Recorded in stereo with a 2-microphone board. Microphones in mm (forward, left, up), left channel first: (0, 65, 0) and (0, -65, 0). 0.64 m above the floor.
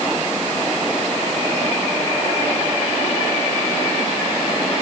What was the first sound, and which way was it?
Only background noise.